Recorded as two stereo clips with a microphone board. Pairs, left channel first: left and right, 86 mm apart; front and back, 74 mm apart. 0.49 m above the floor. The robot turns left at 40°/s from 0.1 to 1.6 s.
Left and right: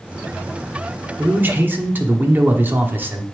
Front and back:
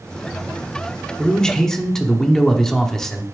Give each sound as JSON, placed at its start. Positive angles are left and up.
{"t": 1.2, "sound": "a man speaking", "azimuth_deg": -60, "distance_m": 0.8}